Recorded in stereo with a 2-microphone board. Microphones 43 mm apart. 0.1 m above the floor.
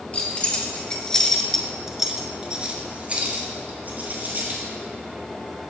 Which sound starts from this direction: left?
Keys jangling, at 0.1 s.